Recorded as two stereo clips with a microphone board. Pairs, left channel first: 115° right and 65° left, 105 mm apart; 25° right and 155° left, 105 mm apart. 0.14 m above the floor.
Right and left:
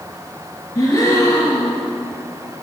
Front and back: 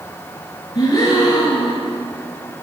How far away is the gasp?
About 2.5 m.